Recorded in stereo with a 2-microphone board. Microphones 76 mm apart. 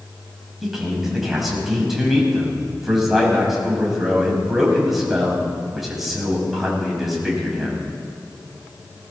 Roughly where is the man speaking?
Centre.